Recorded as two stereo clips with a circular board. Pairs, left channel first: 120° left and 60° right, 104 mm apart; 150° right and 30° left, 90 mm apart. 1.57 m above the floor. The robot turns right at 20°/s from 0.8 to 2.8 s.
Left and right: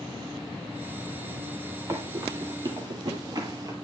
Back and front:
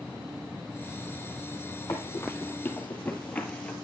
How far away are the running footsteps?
About 2.5 m.